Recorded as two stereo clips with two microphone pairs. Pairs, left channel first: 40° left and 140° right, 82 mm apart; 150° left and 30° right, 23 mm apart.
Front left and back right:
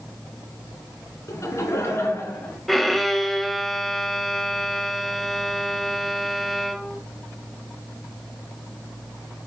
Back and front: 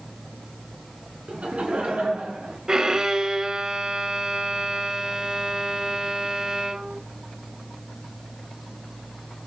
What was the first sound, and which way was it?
Laughter, 10° right.